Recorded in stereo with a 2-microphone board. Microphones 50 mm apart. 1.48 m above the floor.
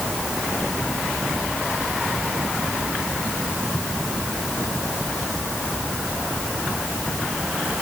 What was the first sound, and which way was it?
Only background noise.